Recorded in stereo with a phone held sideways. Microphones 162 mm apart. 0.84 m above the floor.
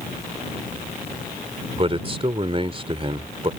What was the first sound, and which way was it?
A man speaking, 35° right (ahead or behind).